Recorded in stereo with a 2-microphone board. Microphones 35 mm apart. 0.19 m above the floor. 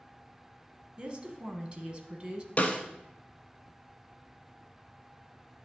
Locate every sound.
1.0 s a woman speaking: 25° right (ahead or behind), 1.3 m
2.6 s a snare drum: 40° left (ahead or behind), 1.0 m